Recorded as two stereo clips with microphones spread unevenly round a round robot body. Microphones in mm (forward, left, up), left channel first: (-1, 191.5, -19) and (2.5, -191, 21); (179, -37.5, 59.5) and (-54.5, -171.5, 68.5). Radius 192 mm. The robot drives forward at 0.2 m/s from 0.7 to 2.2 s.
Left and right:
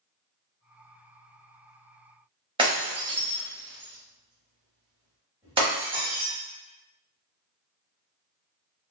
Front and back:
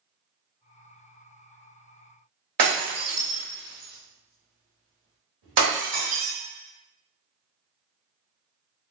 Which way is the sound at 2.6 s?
165° right.